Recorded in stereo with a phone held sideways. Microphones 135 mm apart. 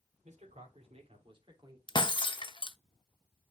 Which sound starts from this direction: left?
Breaking glass, at 1.9 s.